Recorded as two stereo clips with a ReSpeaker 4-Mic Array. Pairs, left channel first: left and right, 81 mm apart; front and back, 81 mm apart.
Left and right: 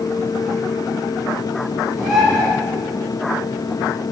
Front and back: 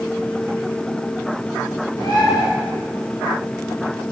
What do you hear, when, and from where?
2.0 s a bird: 175° right, 3 m